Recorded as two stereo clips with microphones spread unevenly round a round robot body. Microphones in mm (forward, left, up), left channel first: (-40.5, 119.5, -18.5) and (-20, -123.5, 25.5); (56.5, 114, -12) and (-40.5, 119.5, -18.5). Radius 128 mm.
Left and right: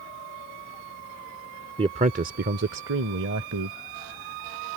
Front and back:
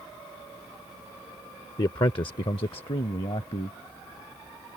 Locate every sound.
1.8 s a man speaking: 10° right; by 3.8 s 50° right